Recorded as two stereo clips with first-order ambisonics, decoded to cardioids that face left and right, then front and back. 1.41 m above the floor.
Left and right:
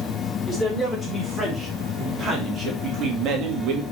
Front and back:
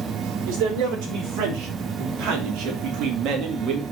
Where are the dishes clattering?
I don't hear dishes clattering.